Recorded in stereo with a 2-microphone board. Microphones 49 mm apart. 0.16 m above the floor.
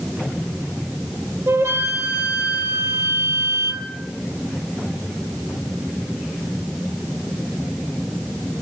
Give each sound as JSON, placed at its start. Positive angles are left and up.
{"t": 1.5, "sound": "a flute", "side_deg": -65, "distance_m": 1.9}